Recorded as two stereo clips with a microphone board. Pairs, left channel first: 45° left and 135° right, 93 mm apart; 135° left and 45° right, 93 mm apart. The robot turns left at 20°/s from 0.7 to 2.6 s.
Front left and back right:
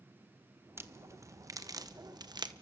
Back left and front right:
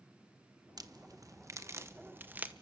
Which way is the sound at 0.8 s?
75° right.